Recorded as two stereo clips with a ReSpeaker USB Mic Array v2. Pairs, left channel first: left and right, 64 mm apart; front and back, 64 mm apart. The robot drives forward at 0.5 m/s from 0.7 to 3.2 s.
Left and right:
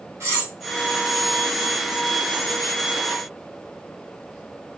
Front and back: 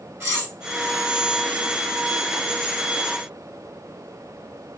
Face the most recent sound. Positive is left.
turn(degrees=-150)